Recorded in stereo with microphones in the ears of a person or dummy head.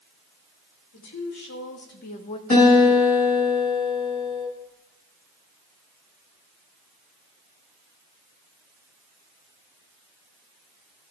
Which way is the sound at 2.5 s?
40° left (ahead or behind).